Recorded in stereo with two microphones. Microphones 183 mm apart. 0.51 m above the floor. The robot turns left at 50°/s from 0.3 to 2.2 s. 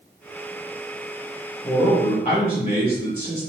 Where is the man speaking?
30° left (ahead or behind), 1.7 m; by 3.5 s 50° left (ahead or behind), 1.7 m.